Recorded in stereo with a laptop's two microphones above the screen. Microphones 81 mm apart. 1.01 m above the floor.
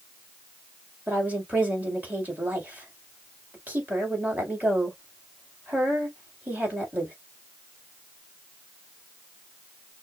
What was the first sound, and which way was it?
A woman speaking, 20° right (ahead or behind).